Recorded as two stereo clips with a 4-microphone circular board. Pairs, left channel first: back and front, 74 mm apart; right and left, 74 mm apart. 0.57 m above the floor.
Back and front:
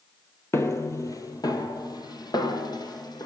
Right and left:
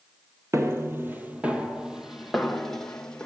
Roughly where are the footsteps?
Behind left.